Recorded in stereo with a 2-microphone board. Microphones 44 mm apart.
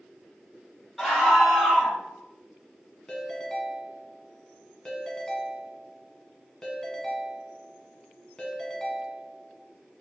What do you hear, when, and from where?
1.0 s a scream: 5° right (ahead or behind), 1.6 m
3.1 s a ringtone: 15° left (ahead or behind), 0.8 m